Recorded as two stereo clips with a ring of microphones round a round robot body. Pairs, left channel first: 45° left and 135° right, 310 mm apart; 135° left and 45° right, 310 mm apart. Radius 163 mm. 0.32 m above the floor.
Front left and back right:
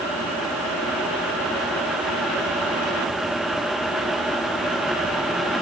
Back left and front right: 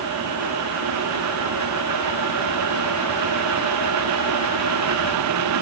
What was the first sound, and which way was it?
Only background noise.